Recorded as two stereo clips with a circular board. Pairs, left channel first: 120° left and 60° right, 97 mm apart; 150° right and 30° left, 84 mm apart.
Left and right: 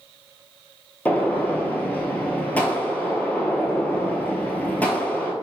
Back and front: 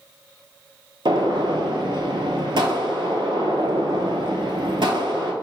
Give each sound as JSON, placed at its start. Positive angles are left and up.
{"t": 1.1, "sound": "a gunshot", "azimuth_deg": 45, "distance_m": 0.6}